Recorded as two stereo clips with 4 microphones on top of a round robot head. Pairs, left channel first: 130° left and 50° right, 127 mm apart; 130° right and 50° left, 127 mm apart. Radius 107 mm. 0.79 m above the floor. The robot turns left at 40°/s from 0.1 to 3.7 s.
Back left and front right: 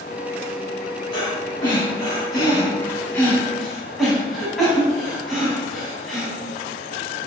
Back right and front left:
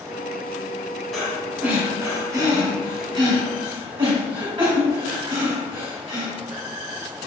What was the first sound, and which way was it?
Breathing, 140° left.